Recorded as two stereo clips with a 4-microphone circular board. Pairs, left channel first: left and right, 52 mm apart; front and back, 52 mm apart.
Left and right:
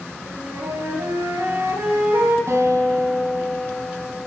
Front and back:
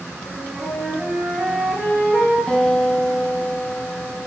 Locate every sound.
0.3 s a flute: 85° right, 6 m
2.5 s a guitar: 75° right, 4 m